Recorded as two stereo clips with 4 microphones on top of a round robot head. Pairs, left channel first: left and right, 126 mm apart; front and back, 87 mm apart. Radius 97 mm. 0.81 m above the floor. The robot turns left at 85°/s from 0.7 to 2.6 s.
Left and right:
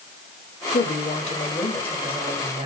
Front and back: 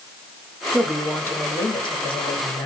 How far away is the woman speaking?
About 1.2 m.